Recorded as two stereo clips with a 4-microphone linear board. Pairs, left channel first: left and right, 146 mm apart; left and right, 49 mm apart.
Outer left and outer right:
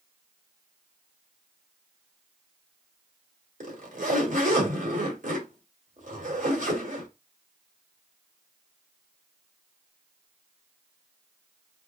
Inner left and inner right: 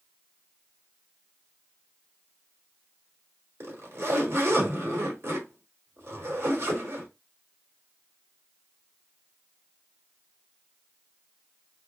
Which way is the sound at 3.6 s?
70° right (ahead or behind).